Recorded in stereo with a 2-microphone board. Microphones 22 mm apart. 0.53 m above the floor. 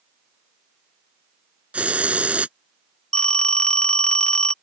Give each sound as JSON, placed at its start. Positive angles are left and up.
{"t": 1.7, "sound": "a hiss", "side_deg": -75}
{"t": 3.1, "sound": "a phone ringing", "side_deg": 45}